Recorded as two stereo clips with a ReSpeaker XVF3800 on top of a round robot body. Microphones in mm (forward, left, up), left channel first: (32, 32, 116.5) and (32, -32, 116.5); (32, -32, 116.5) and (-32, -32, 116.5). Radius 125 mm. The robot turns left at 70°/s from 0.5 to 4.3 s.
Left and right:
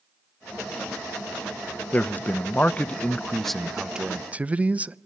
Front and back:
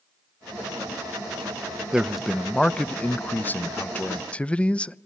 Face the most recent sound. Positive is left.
turn(degrees=-50)